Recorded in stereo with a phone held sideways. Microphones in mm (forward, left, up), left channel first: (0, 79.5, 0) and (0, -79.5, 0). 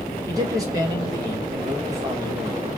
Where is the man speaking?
20° right (ahead or behind), 1.3 m.